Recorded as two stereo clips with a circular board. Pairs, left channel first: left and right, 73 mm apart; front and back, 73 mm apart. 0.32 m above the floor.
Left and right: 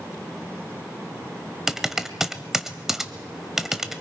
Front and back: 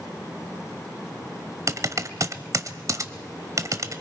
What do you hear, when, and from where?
1.7 s typing on a keyboard: 170° right, 1.0 m